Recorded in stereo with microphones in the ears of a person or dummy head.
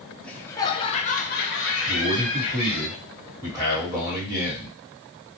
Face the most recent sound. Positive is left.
turn(degrees=-5)  # may be behind; listen again after turning